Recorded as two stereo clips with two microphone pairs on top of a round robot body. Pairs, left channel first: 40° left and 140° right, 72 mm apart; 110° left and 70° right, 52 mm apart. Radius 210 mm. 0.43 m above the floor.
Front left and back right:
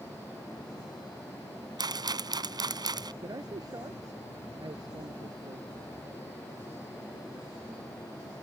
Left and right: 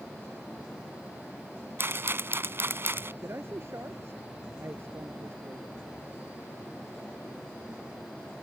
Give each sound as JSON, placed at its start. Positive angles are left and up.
{"t": 1.8, "sound": "a rattle", "azimuth_deg": -115}
{"t": 3.2, "sound": "a man speaking", "azimuth_deg": -110}